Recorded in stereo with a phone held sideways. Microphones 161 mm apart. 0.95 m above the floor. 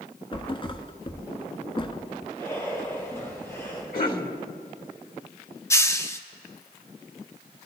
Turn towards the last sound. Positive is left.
turn(degrees=20)  # may be behind; listen again after turning